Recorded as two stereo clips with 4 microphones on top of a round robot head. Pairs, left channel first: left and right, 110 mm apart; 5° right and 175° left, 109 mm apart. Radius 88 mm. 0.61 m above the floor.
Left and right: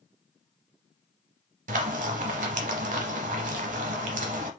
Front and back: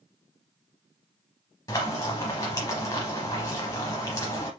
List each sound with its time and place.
1.7 s frying: 75° right, 0.7 m